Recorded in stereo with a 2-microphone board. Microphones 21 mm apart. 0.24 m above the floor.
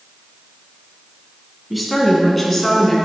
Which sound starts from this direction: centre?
A woman speaking, at 1.7 s.